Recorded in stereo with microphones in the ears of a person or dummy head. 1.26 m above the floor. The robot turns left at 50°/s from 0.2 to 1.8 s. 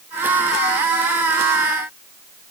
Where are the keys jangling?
I don't hear keys jangling.